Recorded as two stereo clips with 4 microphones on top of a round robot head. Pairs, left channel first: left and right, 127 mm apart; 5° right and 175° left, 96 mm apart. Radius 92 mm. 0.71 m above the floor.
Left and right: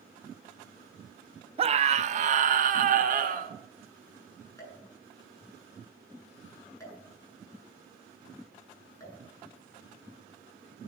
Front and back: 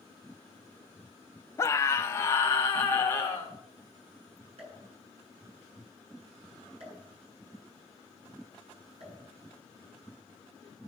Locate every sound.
1.6 s a scream: 60° right, 1.0 m; by 3.5 s 75° right, 2.5 m
4.6 s a pop: 155° left, 8.5 m